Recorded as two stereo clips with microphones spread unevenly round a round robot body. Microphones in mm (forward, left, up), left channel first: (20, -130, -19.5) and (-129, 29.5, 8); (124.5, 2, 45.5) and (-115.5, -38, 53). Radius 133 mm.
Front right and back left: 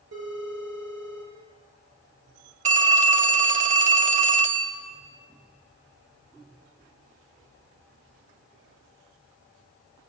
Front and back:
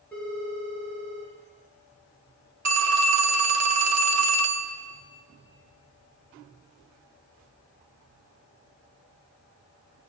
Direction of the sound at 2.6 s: 170° right.